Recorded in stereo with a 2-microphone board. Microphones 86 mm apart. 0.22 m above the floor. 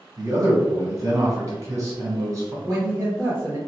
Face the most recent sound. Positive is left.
turn(degrees=-30)  # may be behind; listen again after turning